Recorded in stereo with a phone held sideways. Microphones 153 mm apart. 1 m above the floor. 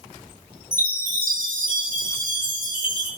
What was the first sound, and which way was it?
A chime, 65° right (ahead or behind).